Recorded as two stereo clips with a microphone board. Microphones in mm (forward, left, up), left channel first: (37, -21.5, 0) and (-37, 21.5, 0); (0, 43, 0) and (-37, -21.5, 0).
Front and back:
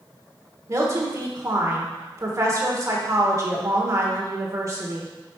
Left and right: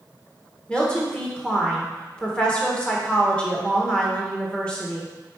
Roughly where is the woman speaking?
Behind left.